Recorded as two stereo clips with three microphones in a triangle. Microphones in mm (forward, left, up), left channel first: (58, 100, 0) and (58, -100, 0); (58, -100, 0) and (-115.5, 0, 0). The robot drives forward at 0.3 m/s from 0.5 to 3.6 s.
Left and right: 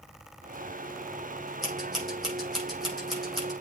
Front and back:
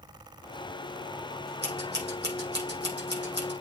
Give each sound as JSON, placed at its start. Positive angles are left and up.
{"t": 1.6, "sound": "scissors", "azimuth_deg": 180, "distance_m": 5.0}